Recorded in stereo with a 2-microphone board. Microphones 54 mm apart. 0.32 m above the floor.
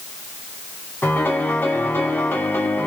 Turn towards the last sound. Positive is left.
turn(degrees=35)  # may be behind; listen again after turning